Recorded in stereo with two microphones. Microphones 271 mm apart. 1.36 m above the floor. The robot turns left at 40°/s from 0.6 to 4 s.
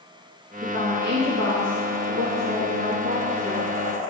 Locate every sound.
0.6 s a woman speaking: 40° right, 2.5 m; by 3.6 s 165° right, 2.5 m